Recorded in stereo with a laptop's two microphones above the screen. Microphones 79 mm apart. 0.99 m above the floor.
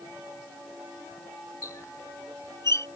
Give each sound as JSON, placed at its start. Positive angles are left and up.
{"t": 1.6, "sound": "a squeak", "side_deg": 45}